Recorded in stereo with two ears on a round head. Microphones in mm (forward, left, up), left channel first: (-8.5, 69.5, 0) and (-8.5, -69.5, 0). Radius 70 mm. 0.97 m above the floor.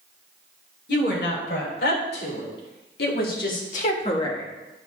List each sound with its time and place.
0.9 s a woman speaking: 85° left, 4.5 m; by 4.5 s 20° left (ahead or behind), 1.3 m